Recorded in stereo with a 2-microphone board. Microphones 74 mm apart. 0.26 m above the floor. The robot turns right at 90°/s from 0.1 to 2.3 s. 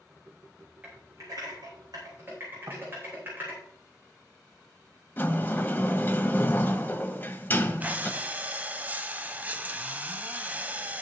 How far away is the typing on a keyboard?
About 7.5 m.